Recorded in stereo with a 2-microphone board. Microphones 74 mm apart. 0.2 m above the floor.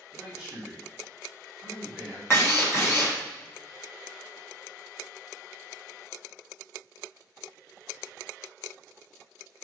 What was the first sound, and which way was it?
A man speaking, 10° right (ahead or behind).